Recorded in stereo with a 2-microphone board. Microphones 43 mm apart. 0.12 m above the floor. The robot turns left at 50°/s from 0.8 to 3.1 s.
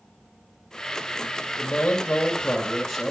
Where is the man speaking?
70° left, 1.9 m; by 3.1 s 5° right, 1.9 m.